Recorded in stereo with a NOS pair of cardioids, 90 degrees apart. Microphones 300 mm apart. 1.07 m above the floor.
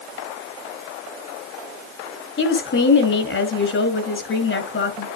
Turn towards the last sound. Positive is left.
turn(degrees=40)